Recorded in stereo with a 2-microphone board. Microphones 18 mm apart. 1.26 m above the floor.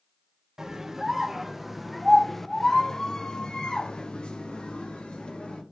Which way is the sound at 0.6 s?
30° right (ahead or behind).